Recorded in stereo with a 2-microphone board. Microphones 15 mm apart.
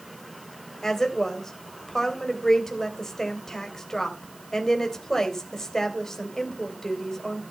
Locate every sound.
0.8 s a woman speaking: 45° left (ahead or behind), 3 m